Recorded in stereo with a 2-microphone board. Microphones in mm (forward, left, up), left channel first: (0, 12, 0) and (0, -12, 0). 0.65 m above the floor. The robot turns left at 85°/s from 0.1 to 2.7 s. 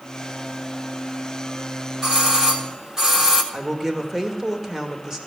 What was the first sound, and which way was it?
A doorbell, 20° right (ahead or behind).